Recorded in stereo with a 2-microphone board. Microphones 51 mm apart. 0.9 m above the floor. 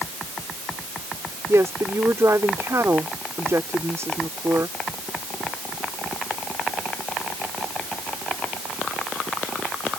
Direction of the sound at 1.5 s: 70° right (ahead or behind).